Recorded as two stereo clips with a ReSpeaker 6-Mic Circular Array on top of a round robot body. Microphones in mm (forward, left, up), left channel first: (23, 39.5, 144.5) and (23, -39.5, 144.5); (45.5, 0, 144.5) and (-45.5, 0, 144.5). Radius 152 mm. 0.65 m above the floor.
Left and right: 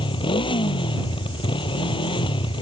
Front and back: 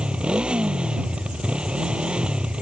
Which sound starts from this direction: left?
A motorcycle, at 0.0 s.